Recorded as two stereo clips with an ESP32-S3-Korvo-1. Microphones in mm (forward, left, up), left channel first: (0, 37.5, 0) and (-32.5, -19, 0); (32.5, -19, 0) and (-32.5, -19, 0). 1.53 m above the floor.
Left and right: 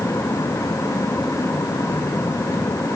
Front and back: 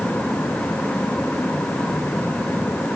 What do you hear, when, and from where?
Only background noise.